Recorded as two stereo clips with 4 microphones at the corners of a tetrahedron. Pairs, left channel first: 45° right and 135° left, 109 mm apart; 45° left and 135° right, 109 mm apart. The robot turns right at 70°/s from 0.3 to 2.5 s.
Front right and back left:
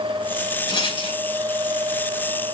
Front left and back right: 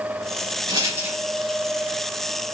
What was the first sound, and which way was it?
A rattle, 90° right.